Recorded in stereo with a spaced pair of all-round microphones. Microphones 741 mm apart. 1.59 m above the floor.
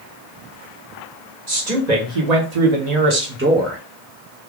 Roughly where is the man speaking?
Right.